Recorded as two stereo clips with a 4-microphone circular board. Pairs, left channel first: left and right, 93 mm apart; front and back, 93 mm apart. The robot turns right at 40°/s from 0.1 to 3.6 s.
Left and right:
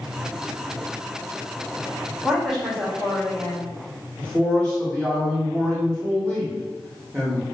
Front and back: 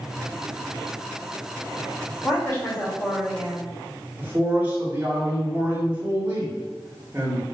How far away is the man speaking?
About 1.1 m.